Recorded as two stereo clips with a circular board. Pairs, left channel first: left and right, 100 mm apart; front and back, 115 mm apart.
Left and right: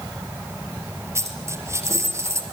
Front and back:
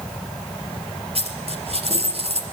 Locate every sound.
1.1 s a dropped coin: 150° right, 4.5 m